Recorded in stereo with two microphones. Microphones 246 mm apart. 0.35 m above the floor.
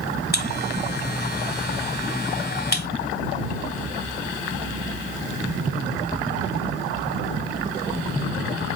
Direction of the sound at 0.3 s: 40° left (ahead or behind).